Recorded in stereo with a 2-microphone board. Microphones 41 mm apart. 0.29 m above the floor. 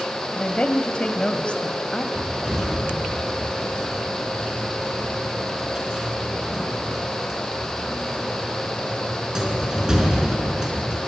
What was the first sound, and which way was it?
A woman speaking, 25° left (ahead or behind).